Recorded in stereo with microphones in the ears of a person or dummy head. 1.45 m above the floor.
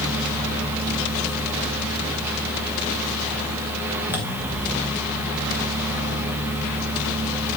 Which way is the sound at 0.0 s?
10° right (ahead or behind).